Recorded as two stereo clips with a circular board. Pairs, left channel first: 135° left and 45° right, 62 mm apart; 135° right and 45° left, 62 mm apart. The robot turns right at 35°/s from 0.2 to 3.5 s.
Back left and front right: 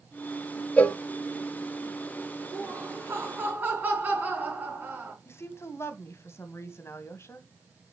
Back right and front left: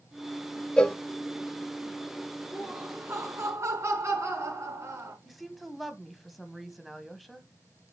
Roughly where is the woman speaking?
Behind left.